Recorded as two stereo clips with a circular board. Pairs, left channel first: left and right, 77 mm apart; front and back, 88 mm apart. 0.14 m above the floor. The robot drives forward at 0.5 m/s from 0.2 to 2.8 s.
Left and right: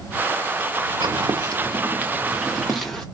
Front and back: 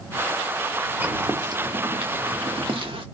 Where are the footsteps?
110° right, 1.0 m; by 3.0 s 170° left, 1.4 m.